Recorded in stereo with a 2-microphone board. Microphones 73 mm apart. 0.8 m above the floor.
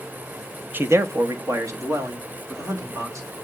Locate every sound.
0.7 s a man speaking: 25° right (ahead or behind), 0.5 m; by 3.3 s 45° right (ahead or behind), 2.5 m